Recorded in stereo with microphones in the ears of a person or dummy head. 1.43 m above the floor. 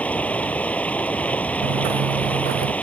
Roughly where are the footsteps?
Right.